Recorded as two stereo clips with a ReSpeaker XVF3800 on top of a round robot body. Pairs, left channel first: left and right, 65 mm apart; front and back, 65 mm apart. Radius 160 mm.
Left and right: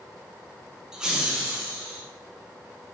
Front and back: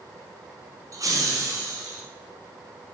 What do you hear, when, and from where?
0.9 s laughter: 170° right, 1.2 m; by 2.0 s 160° right, 2.5 m